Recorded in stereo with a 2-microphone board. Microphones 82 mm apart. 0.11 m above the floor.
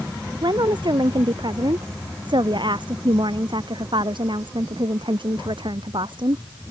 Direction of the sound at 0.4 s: 65° right (ahead or behind).